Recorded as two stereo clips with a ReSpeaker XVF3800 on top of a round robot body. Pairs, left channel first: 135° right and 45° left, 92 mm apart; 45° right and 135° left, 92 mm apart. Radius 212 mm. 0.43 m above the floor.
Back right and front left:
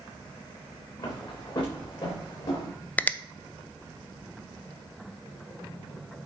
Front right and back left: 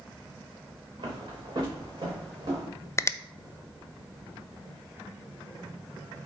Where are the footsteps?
175° left, 3 m; by 2.7 s straight behind, 4 m.